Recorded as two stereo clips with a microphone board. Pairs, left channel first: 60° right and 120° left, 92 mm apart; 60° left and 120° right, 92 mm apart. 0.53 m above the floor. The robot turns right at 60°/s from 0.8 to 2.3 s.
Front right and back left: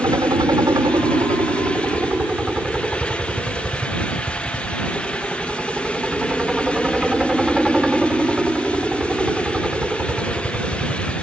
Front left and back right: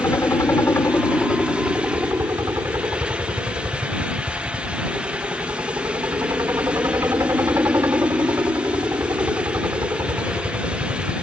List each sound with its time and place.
0.0 s a helicopter: 105° left; by 11.2 s 165° right